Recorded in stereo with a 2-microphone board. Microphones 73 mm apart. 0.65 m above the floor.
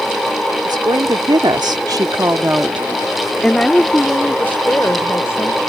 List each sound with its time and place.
0.7 s a woman speaking: 65° right (ahead or behind); by 5.6 s 35° left (ahead or behind)